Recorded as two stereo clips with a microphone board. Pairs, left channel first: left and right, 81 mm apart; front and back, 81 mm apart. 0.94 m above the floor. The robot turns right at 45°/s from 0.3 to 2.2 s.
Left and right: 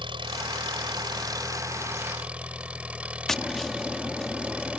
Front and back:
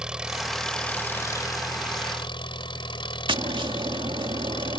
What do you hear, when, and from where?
0.0 s an engine running: 100° right; by 4.8 s 15° right
3.3 s tapping: 175° left